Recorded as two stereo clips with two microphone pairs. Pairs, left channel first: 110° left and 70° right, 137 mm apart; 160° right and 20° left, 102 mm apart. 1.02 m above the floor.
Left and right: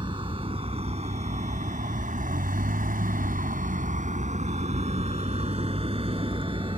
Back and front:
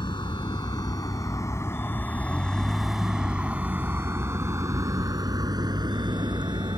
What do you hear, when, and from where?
0.0 s a vehicle: 120° right; by 6.8 s 20° right